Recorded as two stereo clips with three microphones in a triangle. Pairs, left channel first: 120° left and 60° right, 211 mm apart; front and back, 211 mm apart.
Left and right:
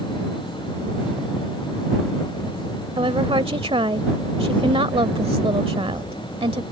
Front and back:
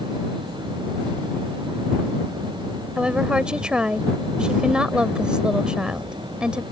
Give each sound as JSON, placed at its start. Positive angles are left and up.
{"t": 3.0, "sound": "a woman speaking", "azimuth_deg": -100}